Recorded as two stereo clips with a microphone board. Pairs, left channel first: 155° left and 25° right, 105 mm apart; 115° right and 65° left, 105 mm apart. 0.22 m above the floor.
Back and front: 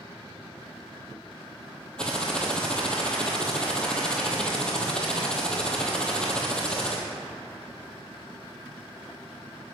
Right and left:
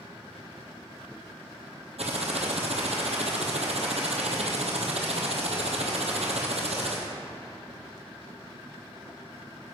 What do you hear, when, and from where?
2.0 s typing on a keyboard: 75° left, 1.7 m